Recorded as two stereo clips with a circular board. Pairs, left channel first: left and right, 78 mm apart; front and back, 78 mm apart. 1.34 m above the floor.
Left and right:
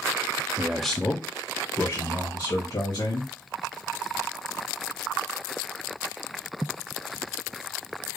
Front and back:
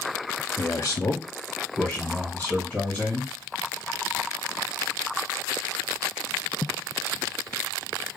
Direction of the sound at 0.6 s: 50° right.